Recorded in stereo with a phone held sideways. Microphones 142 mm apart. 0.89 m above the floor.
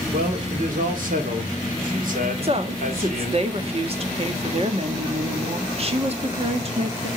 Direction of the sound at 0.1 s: 70° right (ahead or behind).